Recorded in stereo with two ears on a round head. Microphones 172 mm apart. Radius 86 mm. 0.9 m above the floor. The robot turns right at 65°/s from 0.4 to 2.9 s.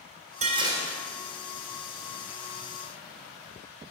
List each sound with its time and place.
0.4 s dishes clattering: 40° right, 1.9 m; by 1.0 s straight ahead, 1.9 m